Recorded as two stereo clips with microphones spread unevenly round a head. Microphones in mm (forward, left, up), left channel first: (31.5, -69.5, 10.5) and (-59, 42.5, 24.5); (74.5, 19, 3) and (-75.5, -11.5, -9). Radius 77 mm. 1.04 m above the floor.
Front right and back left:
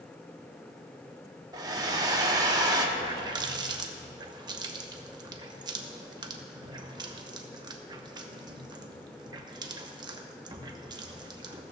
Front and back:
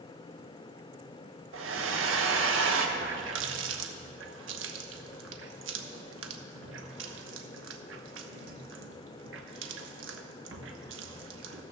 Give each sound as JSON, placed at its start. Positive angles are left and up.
{"t": 1.5, "sound": "a hair dryer", "azimuth_deg": -165, "distance_m": 1.2}
{"t": 3.0, "sound": "a running tap", "azimuth_deg": -170, "distance_m": 1.0}